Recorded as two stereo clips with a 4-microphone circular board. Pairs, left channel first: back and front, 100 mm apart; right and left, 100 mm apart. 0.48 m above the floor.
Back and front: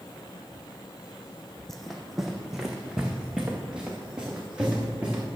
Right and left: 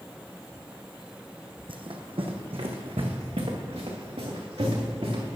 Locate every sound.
1.7 s running footsteps: 95° left, 1.0 m; by 5.2 s 80° left, 3 m